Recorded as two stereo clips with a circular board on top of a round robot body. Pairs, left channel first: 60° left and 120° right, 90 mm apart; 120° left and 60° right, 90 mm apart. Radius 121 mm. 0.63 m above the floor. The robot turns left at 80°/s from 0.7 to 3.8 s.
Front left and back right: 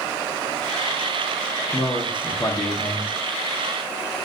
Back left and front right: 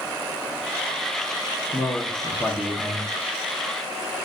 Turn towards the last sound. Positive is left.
turn(degrees=-70)